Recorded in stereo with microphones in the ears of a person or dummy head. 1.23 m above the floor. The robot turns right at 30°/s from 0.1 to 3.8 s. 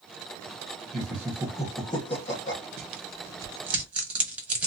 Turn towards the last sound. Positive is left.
turn(degrees=-10)  # may be behind; listen again after turning